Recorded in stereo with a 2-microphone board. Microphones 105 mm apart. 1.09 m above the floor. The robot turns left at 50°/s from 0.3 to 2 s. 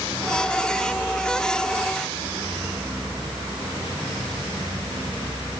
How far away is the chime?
No chime in this recording.